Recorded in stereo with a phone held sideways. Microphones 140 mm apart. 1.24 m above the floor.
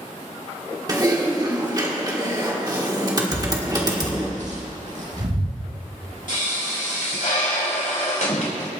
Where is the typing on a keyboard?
30° right (ahead or behind), 1.5 m.